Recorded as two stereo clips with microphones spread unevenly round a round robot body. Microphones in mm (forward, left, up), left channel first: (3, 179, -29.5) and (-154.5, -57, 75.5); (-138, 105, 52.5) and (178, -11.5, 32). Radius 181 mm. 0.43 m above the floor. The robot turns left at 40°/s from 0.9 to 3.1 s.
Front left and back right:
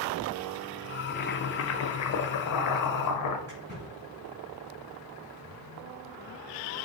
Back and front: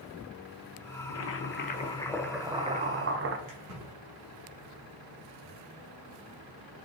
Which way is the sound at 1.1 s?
115° left.